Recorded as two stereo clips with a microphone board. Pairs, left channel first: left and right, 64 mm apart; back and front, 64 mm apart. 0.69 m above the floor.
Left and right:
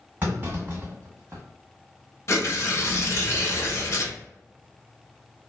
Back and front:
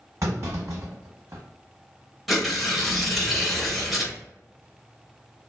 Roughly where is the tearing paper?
Left.